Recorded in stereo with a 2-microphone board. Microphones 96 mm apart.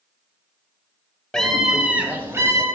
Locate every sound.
1.3 s a scream: 5° left (ahead or behind), 1.7 m; by 2.6 s 35° right (ahead or behind), 2.5 m